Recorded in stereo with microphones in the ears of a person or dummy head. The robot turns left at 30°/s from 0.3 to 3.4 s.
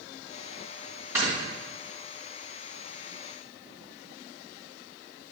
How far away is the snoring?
About 2.5 m.